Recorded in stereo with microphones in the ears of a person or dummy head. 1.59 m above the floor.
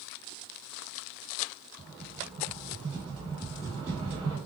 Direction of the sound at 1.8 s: 20° right (ahead or behind).